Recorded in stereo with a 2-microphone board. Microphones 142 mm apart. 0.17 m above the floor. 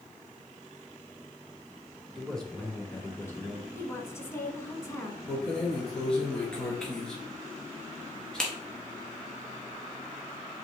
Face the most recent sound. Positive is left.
turn(degrees=5)  # may be behind; listen again after turning